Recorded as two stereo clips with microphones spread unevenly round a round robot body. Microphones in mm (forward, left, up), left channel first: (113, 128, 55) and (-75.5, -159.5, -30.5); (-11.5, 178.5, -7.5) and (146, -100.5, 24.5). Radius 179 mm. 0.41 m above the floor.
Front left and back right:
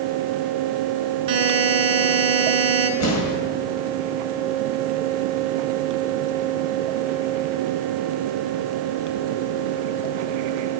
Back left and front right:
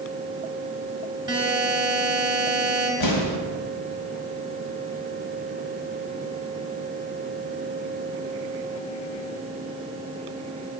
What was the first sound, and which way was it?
A buzzer, 140° right.